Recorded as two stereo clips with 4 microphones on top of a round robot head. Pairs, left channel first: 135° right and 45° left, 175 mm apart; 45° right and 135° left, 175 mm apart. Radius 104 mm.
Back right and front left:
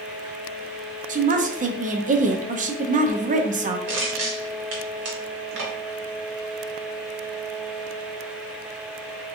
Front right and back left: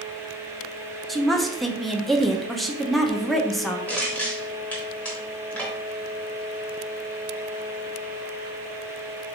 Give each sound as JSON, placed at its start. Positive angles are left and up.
{"t": 1.1, "sound": "a woman speaking", "azimuth_deg": 45, "distance_m": 0.7}
{"t": 3.9, "sound": "crushing", "azimuth_deg": 35, "distance_m": 1.0}